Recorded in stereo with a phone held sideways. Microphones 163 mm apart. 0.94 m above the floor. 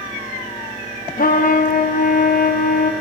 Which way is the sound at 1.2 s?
65° left (ahead or behind).